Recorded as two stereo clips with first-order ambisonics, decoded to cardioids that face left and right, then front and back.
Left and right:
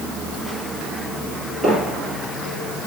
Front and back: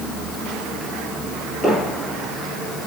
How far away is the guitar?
I don't hear a guitar.